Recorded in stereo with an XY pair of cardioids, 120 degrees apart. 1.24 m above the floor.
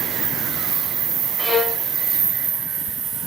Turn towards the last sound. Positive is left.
turn(degrees=15)